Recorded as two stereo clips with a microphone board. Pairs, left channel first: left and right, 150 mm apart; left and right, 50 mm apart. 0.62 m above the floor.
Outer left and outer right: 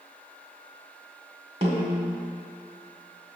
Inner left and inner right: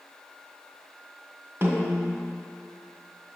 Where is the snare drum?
40° right (ahead or behind), 1.7 m.